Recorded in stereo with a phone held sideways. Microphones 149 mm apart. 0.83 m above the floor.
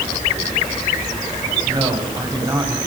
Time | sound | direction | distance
1.6 | a man speaking | 30° right (ahead or behind) | 6.5 m